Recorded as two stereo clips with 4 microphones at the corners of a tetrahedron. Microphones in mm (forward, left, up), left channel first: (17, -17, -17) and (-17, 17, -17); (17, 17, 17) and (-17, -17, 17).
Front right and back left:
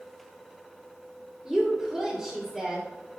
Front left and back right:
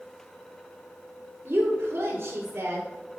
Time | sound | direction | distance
1.4 | a woman speaking | 130° right | 1.9 m